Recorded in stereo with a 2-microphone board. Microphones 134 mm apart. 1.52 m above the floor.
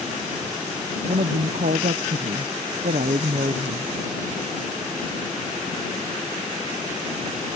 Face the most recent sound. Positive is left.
turn(degrees=-80)